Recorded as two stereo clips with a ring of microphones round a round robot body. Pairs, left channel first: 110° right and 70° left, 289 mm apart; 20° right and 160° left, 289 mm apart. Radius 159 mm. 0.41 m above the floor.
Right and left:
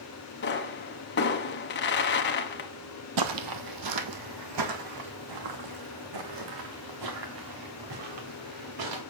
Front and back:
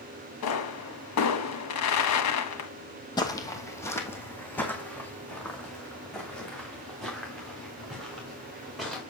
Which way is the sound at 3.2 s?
55° left.